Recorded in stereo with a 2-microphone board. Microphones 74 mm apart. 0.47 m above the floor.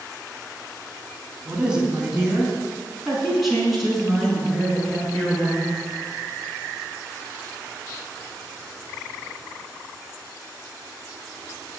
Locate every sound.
1.4 s a woman speaking: 15° right (ahead or behind), 3.5 m; by 5.8 s 10° left (ahead or behind), 7.5 m